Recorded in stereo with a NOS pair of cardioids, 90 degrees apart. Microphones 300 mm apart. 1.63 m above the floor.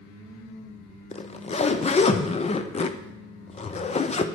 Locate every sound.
1.1 s a zipper: 20° left, 0.6 m